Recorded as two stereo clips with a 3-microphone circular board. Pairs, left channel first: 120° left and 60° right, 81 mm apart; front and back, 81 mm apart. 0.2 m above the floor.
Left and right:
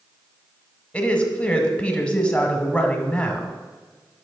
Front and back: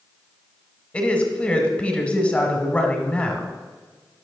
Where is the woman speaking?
55° left, 1.1 m.